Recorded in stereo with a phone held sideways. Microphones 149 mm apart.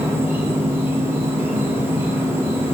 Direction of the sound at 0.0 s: 15° right (ahead or behind).